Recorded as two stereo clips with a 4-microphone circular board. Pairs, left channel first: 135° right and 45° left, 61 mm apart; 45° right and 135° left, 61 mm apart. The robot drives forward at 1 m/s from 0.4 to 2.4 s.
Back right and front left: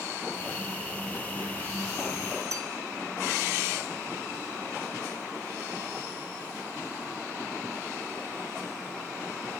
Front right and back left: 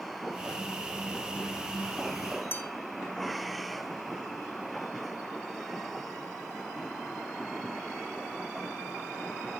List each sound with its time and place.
2.5 s a bell: 10° left, 2 m